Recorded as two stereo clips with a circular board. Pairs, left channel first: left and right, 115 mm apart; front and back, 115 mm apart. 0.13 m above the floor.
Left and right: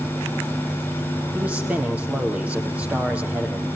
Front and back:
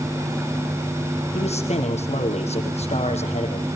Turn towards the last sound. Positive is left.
turn(degrees=-10)